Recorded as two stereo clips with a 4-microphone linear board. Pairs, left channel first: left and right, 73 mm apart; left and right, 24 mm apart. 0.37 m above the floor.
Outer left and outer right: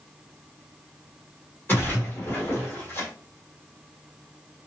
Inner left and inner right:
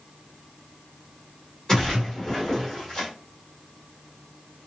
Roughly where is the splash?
Left.